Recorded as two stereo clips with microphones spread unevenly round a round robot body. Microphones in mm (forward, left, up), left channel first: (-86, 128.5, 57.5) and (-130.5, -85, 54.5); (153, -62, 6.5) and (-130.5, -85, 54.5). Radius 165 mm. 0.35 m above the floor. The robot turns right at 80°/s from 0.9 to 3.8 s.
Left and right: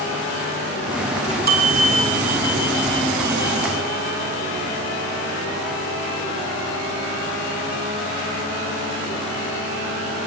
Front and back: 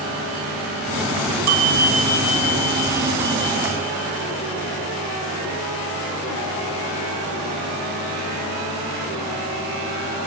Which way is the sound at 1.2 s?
165° right.